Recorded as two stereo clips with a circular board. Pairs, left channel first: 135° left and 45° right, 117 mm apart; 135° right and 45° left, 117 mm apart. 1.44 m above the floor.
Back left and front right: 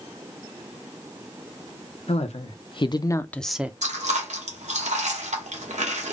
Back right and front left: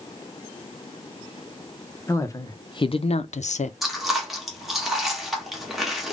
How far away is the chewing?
About 1.2 m.